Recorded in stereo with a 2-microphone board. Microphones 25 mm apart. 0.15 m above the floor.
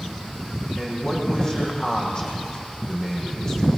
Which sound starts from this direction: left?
A man speaking, at 0.8 s.